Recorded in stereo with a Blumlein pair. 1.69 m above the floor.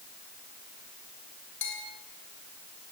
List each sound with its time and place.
1.6 s a bell: 55° left, 5.5 m